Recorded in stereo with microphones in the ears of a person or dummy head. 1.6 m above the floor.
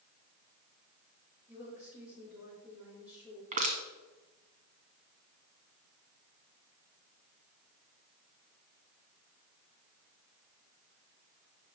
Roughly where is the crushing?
Right.